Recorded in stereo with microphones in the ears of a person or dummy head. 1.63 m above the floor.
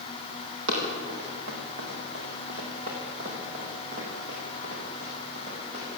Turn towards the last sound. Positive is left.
turn(degrees=-25)  # may be behind; listen again after turning